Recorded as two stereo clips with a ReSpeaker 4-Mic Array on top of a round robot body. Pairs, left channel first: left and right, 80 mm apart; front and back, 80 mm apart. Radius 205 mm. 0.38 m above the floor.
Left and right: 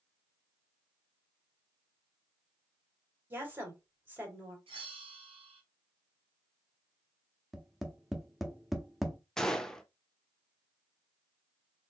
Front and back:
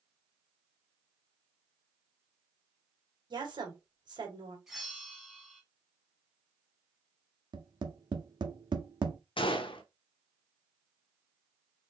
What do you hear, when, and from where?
3.3 s a woman speaking: 155° right, 2.5 m
4.7 s a bell: 90° right, 0.6 m
7.5 s tapping: straight behind, 1.0 m
9.4 s a gunshot: 10° left, 0.6 m